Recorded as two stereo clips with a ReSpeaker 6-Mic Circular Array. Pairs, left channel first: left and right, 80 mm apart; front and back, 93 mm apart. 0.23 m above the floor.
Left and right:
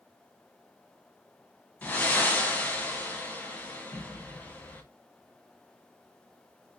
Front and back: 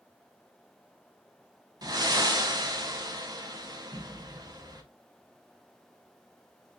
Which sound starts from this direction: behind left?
Breathing, at 1.8 s.